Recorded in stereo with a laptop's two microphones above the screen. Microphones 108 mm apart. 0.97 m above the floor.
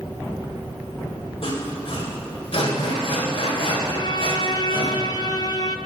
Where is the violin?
40° left (ahead or behind), 0.8 m.